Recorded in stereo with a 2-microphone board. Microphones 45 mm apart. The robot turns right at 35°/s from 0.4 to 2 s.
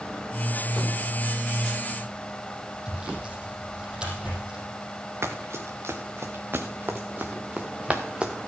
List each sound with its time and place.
2.9 s sawing: 20° right (ahead or behind), 4.5 m
5.2 s running footsteps: 80° right, 1.9 m; by 8.3 s 20° right (ahead or behind), 1.6 m